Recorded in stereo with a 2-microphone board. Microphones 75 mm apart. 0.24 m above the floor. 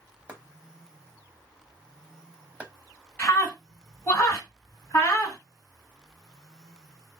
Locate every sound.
0.3 s chopping: 20° right (ahead or behind), 0.7 m
3.2 s a scream: 25° left (ahead or behind), 2 m